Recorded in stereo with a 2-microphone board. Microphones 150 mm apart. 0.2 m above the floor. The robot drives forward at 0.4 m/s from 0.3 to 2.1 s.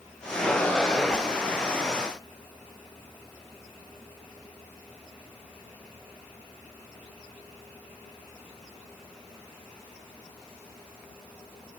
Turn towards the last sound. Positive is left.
No sound to turn to.